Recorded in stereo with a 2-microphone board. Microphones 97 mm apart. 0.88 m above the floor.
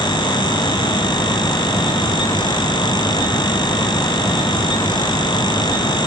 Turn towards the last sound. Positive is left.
No sound to turn to.